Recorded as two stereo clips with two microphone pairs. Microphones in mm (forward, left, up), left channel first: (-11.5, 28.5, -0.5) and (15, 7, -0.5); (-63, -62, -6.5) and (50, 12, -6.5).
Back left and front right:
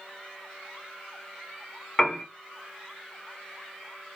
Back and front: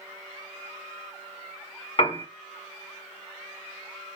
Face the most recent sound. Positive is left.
turn(degrees=-150)